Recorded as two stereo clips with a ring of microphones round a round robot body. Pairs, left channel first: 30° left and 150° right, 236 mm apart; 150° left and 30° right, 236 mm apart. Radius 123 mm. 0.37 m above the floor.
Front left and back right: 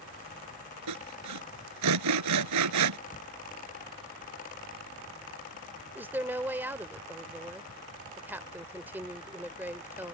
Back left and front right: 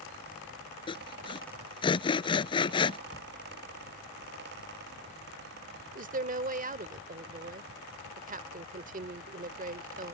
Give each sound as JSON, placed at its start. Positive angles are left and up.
{"t": 0.9, "sound": "sawing", "azimuth_deg": -140}
{"t": 3.1, "sound": "a cupboard door", "azimuth_deg": 85}
{"t": 6.0, "sound": "a woman speaking", "azimuth_deg": -70}